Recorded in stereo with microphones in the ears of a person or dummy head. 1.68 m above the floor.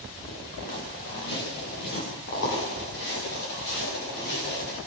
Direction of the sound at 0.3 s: 60° left (ahead or behind).